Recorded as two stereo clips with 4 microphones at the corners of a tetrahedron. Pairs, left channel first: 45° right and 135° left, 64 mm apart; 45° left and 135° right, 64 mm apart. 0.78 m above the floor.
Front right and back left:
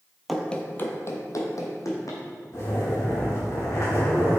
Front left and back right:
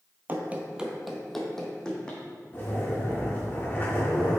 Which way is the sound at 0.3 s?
135° right.